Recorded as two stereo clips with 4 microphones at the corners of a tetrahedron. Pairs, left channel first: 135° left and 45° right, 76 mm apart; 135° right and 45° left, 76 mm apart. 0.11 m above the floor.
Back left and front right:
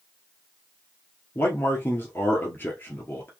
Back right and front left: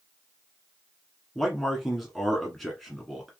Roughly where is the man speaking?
Behind left.